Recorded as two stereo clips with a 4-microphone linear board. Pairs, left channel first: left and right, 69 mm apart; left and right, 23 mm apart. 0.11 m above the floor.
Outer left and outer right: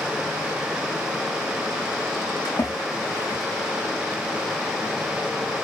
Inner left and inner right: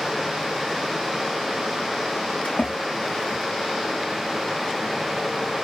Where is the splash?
70° left (ahead or behind), 5 m.